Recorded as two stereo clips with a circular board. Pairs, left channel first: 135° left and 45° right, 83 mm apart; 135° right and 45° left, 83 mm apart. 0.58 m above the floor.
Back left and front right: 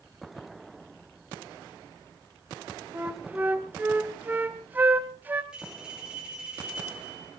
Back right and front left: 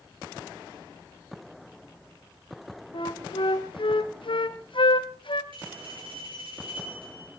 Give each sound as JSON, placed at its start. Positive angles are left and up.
{"t": 2.9, "sound": "a flute", "azimuth_deg": -115, "distance_m": 1.5}
{"t": 5.5, "sound": "a bell", "azimuth_deg": 35, "distance_m": 8.5}